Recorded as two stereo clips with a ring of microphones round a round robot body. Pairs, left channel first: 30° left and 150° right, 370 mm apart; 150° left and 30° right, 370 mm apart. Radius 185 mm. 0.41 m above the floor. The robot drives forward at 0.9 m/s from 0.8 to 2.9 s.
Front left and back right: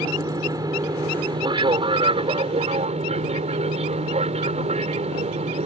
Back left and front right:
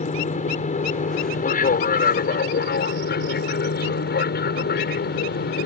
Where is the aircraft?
150° left; by 5.7 s 160° left.